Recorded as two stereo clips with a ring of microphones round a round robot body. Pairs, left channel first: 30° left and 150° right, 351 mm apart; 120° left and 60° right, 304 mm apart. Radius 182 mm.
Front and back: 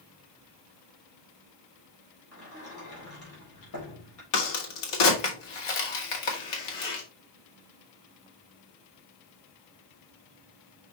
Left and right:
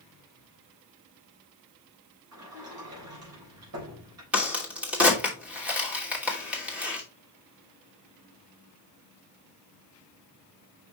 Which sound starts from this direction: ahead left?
A crack, at 4.3 s.